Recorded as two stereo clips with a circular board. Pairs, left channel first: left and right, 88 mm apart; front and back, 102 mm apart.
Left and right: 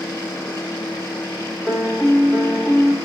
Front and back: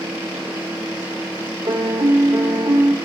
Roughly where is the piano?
Behind.